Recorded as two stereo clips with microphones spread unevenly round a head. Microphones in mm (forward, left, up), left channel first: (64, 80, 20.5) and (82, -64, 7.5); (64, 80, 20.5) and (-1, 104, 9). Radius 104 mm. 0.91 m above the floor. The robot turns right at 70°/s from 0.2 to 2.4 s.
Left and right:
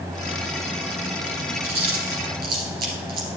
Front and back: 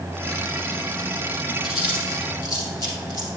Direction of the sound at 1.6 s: 130° right.